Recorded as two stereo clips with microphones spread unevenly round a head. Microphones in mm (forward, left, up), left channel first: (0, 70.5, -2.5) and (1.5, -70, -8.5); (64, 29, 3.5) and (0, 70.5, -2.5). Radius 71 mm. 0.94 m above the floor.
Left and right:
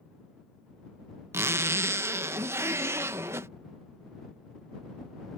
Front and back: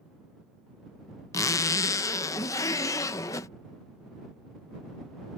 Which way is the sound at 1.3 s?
30° right.